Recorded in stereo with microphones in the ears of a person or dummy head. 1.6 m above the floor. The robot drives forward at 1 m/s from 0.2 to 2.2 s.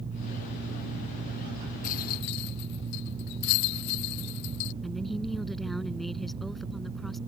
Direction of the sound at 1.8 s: 45° left (ahead or behind).